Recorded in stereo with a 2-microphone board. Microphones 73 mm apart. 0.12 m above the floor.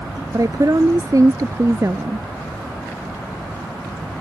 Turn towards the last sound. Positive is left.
turn(degrees=-40)  # may be behind; listen again after turning